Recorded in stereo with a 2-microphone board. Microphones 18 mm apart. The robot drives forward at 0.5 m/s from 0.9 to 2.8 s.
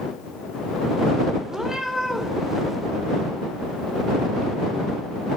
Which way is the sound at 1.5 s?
25° right (ahead or behind).